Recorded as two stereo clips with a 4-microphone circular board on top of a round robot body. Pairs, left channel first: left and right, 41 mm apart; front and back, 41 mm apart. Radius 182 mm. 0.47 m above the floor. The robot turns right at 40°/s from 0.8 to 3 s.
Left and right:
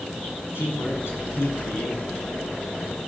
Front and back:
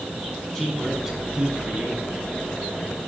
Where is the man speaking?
90° left, 6 m; by 2.2 s 145° left, 6 m.